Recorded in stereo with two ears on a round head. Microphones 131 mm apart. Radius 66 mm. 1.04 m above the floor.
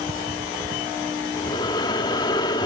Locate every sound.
1.3 s breathing: 30° left (ahead or behind), 1.0 m